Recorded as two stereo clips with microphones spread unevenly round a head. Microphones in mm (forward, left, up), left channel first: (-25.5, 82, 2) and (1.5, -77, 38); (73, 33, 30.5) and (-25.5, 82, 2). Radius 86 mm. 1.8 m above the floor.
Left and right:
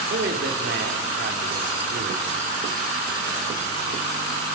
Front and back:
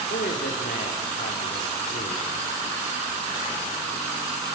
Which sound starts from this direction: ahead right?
A man speaking, at 0.1 s.